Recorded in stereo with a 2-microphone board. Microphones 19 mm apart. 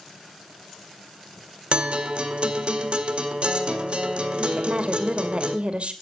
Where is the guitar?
60° right (ahead or behind), 2.0 m.